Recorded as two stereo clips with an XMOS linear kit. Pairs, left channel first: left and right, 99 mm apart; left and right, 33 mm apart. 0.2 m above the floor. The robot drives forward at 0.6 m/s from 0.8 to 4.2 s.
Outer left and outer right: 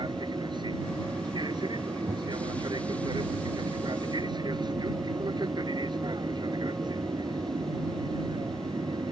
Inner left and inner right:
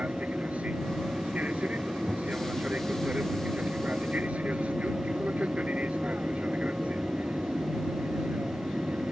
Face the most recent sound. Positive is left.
turn(degrees=-45)  # may be behind; listen again after turning